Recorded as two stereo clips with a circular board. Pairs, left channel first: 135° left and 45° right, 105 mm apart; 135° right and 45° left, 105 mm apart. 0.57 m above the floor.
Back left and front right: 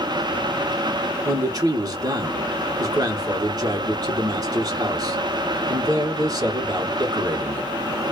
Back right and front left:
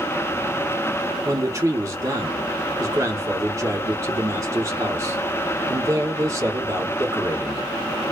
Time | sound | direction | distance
1.2 | a man speaking | 5° right | 1.2 m